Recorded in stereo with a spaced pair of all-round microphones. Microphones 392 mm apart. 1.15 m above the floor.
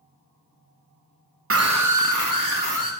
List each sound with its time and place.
1.5 s a scream: 35° right (ahead or behind), 0.8 m; by 2.9 s 55° right (ahead or behind), 3 m